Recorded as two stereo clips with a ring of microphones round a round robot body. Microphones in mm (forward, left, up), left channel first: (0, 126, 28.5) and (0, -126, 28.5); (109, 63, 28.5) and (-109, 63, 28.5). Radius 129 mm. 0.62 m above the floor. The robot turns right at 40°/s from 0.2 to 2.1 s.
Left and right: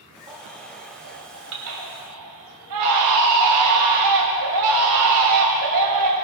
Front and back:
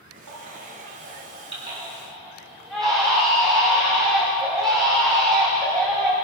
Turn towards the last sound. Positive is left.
turn(degrees=-90)